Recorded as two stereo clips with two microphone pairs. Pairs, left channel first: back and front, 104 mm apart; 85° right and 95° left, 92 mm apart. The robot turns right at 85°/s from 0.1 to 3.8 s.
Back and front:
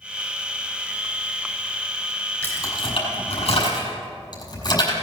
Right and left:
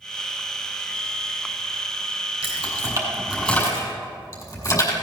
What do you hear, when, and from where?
2.4 s keys jangling: 110° left, 6 m; by 4.9 s 130° right, 6 m